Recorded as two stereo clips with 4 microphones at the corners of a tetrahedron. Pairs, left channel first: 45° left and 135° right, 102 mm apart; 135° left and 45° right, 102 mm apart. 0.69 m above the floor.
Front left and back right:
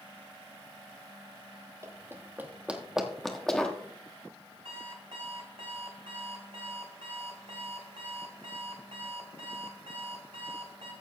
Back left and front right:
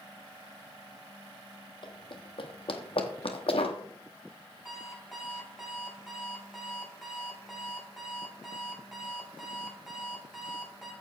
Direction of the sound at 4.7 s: 130° right.